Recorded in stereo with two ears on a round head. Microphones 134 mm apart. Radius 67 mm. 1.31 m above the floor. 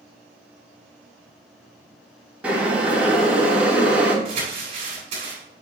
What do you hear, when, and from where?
2.4 s boiling: 10° right (ahead or behind), 3 m
4.2 s crumpling: 45° right (ahead or behind), 4.5 m